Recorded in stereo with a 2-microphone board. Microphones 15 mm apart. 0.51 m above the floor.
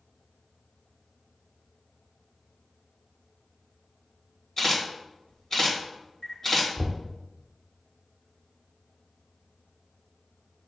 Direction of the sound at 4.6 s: 30° left (ahead or behind).